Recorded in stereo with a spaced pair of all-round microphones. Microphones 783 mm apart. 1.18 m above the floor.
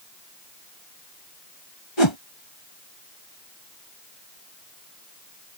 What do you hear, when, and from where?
2.0 s a whoosh: 35° left (ahead or behind)